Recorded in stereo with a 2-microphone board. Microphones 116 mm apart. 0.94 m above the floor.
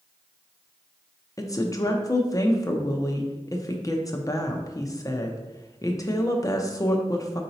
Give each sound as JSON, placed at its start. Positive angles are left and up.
{"t": 1.4, "sound": "a woman speaking", "side_deg": 30, "distance_m": 0.5}